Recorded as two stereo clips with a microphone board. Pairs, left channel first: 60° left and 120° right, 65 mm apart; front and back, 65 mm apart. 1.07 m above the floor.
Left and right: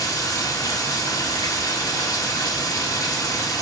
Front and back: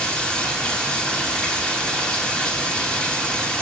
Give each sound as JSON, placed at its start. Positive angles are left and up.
{"t": 0.0, "sound": "running water", "azimuth_deg": 75, "distance_m": 2.5}